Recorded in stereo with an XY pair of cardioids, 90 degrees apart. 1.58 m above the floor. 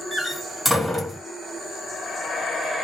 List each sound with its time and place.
0.1 s a door slam: 5° left, 1.3 m